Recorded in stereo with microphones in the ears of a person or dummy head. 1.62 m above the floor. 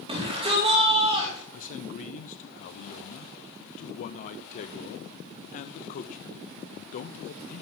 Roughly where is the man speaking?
Left.